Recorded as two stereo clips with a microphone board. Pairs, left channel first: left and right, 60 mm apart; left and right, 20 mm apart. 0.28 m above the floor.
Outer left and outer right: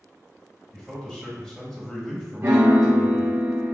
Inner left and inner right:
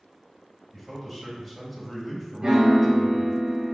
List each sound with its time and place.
0.7 s a man speaking: 10° left (ahead or behind), 1.5 m
2.4 s a piano: 45° right (ahead or behind), 1.4 m